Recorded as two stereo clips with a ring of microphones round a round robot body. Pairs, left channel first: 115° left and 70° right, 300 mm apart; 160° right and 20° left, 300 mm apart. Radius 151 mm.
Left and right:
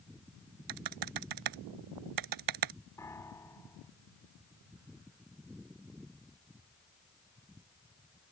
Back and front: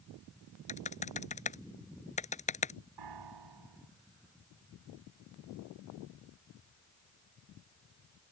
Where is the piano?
30° left.